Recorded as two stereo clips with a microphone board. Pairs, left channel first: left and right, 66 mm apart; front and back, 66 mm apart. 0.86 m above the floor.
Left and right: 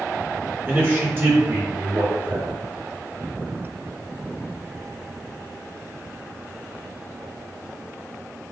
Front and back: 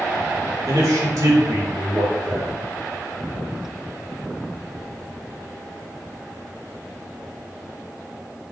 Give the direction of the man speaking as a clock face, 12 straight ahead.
5 o'clock.